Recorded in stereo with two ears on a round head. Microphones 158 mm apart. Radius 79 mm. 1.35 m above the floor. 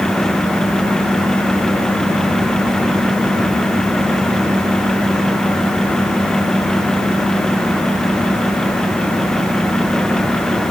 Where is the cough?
No cough in this recording.